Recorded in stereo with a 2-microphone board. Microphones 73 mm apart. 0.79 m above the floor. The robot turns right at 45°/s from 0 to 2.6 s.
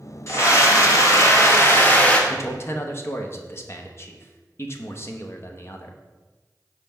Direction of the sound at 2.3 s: 40° left (ahead or behind).